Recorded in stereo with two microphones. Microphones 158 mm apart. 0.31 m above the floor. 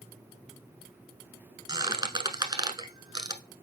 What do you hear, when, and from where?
1.7 s a squeak: 25° right (ahead or behind), 0.9 m